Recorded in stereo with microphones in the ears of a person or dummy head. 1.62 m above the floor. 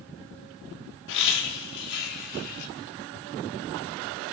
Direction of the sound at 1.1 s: 75° left (ahead or behind).